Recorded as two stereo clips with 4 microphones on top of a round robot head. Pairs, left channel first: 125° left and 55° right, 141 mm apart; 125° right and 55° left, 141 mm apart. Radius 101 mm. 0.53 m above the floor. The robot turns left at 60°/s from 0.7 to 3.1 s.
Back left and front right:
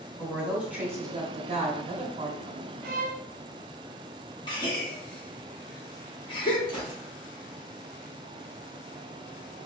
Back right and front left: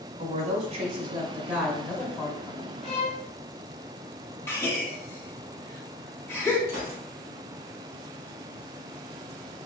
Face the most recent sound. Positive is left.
turn(degrees=65)